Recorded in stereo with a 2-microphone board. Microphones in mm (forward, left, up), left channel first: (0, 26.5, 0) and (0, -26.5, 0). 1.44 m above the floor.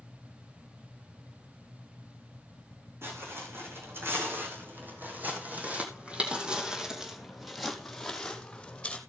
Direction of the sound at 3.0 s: 50° right (ahead or behind).